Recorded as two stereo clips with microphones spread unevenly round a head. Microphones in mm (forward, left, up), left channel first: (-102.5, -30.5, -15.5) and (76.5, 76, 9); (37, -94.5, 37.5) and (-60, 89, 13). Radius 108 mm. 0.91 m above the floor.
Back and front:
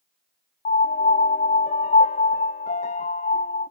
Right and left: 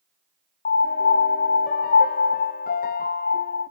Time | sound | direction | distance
0.7 | a piano | 105° right | 0.6 m